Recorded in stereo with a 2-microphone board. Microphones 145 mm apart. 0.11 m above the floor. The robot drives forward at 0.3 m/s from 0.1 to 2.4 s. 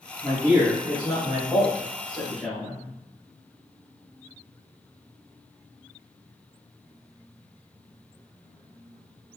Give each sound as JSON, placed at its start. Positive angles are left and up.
{"t": 0.2, "sound": "a man speaking", "side_deg": -15, "distance_m": 1.5}